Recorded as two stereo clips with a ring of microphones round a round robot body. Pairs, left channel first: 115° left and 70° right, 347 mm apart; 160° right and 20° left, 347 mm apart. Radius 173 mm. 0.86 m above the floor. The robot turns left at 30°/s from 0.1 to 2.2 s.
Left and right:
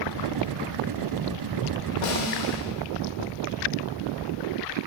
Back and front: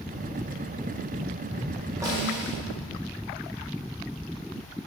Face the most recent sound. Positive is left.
turn(degrees=100)